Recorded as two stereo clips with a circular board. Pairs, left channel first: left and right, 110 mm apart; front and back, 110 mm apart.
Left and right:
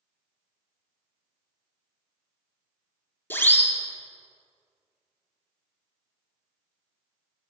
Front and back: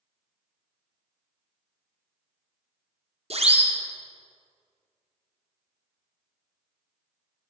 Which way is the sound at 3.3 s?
160° left.